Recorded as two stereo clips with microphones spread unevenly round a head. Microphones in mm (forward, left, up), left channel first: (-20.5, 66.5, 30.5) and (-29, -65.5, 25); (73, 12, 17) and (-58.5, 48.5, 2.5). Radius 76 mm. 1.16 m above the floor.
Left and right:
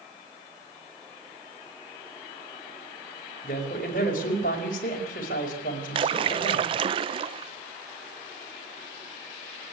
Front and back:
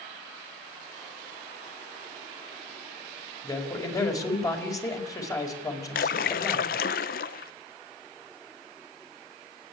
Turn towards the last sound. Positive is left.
turn(degrees=-45)